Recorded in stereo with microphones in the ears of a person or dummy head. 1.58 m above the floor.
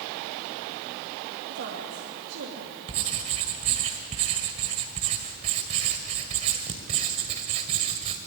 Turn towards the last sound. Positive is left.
turn(degrees=-40)  # may be behind; listen again after turning